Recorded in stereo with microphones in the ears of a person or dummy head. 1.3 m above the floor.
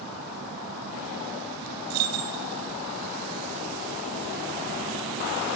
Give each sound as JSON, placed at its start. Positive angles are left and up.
{"t": 1.9, "sound": "keys jangling", "side_deg": -80, "distance_m": 1.6}